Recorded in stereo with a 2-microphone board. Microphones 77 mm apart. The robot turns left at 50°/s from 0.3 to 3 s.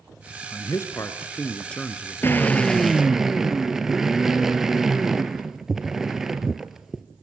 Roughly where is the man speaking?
Left.